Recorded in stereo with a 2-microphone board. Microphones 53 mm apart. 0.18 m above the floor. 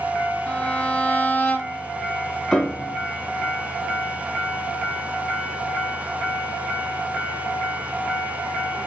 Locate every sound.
0.5 s a violin: 25° left (ahead or behind), 1.0 m
2.5 s a piano: 10° left (ahead or behind), 1.0 m